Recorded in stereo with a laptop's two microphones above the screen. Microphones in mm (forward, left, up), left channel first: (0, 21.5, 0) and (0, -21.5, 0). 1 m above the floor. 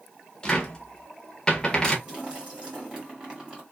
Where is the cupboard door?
15° left (ahead or behind), 0.6 m.